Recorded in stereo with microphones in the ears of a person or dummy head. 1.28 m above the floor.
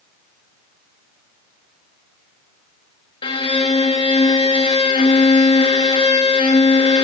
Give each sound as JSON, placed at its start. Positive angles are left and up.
{"t": 3.2, "sound": "a violin", "side_deg": 25, "distance_m": 0.7}